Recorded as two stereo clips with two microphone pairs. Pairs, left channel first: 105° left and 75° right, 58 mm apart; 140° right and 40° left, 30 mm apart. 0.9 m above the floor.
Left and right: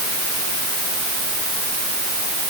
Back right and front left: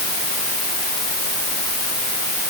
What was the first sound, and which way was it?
Only background noise.